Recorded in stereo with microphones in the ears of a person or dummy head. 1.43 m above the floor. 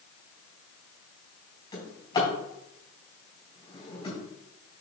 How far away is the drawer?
About 4 m.